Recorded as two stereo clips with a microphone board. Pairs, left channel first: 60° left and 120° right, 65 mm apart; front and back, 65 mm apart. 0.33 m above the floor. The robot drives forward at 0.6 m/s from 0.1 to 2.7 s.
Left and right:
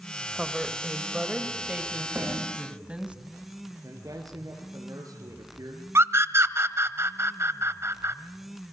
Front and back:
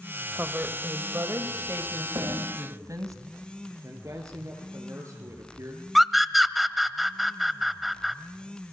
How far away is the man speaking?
About 5 m.